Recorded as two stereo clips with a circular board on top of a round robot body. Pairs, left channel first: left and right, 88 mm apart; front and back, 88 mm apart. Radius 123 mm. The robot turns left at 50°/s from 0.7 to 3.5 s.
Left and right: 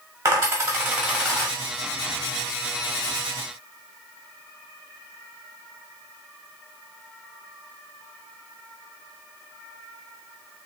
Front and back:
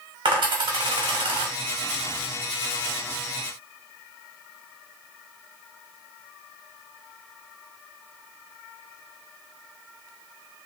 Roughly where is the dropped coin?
Behind right.